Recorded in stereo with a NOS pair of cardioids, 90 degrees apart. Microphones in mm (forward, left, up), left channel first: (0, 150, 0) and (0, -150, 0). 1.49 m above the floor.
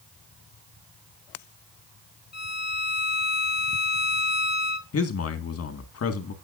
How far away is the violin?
About 1.5 m.